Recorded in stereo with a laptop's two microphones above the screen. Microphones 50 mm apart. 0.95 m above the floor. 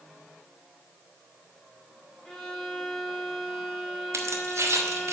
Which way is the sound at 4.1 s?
75° right (ahead or behind).